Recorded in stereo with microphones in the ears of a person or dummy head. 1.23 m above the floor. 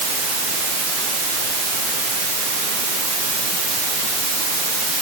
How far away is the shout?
No shout in this recording.